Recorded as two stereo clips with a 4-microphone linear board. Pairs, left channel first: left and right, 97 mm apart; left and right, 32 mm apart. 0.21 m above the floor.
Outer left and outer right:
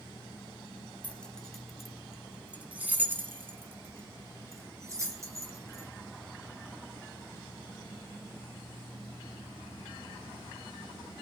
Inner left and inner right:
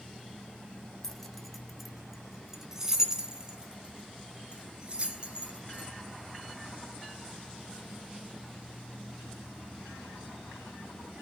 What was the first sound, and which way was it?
Keys jangling, 15° left (ahead or behind).